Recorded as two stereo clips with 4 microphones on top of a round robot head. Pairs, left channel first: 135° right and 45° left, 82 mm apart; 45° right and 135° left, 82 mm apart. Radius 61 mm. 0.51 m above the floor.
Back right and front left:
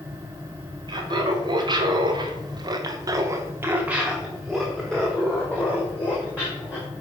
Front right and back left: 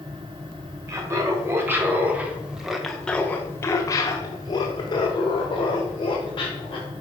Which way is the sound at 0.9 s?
80° left.